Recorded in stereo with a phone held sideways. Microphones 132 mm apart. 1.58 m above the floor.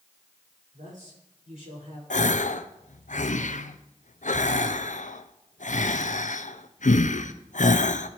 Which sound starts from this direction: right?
A man speaking, at 0.7 s.